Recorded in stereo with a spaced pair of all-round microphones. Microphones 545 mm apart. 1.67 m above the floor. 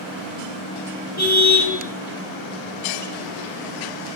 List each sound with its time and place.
1.2 s a car horn: 30° left (ahead or behind), 8.5 m